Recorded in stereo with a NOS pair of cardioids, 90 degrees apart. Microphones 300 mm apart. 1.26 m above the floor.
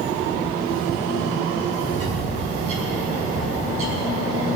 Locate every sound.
1.9 s a bird: 50° right, 4 m